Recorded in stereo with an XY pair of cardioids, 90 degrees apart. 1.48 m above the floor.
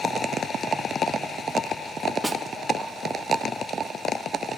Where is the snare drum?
20° right, 0.5 m.